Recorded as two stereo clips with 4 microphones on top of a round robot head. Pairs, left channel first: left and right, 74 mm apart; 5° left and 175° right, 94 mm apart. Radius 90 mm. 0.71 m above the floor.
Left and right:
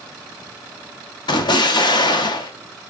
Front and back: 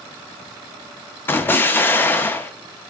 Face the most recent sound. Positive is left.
turn(degrees=75)